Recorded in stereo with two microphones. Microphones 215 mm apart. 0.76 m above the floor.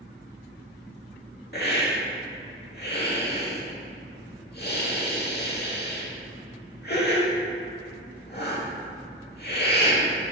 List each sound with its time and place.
1.5 s a hiss: 50° left (ahead or behind), 0.9 m